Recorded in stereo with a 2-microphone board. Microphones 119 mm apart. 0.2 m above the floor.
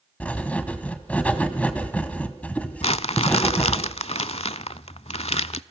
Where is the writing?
10° left (ahead or behind), 1.5 m.